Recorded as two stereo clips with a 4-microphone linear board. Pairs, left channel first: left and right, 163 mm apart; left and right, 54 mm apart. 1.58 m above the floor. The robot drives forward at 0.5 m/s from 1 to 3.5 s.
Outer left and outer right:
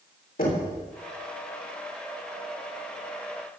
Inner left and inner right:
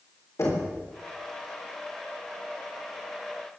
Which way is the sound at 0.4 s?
65° left (ahead or behind).